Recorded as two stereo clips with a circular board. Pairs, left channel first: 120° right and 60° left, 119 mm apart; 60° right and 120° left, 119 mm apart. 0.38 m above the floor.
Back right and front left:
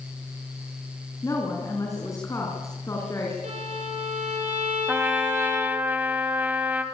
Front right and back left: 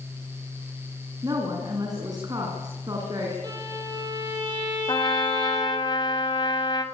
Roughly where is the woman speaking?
Behind.